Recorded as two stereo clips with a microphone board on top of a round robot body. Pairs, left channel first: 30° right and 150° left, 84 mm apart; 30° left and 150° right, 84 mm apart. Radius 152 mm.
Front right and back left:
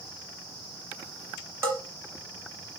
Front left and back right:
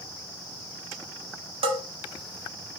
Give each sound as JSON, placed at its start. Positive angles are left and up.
{"t": 1.6, "sound": "a bell", "azimuth_deg": -150, "distance_m": 0.9}